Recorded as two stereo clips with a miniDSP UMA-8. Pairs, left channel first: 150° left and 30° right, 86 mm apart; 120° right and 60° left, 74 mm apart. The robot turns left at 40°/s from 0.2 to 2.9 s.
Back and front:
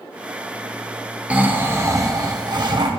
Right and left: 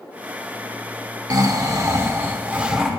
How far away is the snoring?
About 0.8 m.